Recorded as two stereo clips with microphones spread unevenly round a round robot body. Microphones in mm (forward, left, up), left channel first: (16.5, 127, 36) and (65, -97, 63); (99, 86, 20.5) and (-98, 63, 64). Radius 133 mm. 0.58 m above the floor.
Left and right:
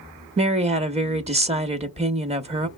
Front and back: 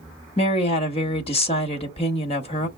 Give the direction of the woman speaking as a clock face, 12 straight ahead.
1 o'clock.